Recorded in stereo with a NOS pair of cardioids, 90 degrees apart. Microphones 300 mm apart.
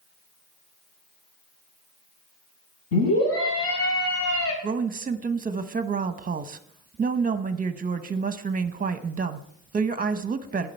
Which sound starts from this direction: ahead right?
A woman speaking, at 4.6 s.